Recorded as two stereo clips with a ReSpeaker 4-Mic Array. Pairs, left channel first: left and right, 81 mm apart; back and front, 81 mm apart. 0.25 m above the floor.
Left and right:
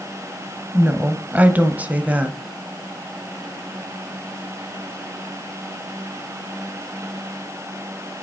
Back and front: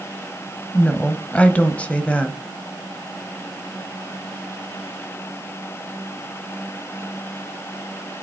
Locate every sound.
0.7 s a woman speaking: 130° right, 1.0 m